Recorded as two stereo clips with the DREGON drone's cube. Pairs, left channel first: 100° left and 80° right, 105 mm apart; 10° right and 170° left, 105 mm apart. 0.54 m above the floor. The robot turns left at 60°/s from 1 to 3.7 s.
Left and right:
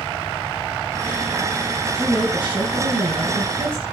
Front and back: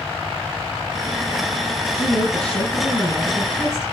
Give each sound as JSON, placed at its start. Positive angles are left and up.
{"t": 1.9, "sound": "a woman speaking", "azimuth_deg": -5, "distance_m": 6.0}